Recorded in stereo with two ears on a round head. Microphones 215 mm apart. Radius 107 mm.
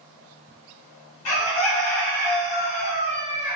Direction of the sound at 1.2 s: 80° left.